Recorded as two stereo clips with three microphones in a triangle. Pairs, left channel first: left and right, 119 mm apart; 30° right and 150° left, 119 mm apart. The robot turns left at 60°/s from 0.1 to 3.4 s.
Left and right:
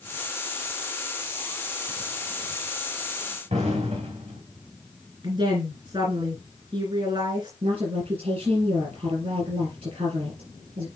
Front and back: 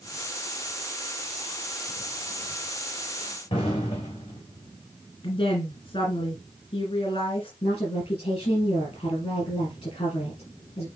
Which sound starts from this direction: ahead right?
A woman speaking, at 5.2 s.